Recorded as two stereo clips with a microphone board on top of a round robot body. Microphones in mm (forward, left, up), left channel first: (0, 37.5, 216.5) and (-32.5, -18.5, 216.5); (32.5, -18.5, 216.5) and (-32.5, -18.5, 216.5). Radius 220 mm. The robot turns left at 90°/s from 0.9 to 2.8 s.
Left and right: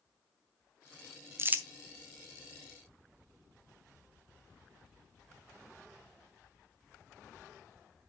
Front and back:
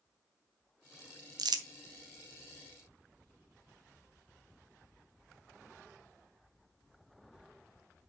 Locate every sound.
1.4 s crumpling: 170° right, 0.8 m; by 1.6 s 165° left, 0.8 m